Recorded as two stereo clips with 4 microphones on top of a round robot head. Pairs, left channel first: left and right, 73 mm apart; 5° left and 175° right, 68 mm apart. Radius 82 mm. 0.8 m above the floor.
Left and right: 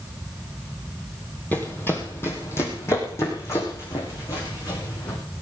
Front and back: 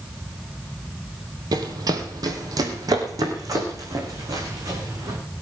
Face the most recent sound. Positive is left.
turn(degrees=145)